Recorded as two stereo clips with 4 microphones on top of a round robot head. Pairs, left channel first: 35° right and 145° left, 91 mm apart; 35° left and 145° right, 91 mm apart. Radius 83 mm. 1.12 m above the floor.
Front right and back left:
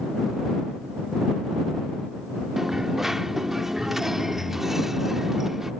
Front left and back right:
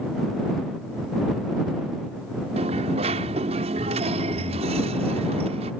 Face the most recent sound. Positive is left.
turn(degrees=-130)